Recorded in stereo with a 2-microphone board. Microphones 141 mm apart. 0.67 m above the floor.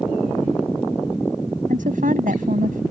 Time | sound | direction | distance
1.7 | a woman speaking | 75° right (ahead or behind) | ?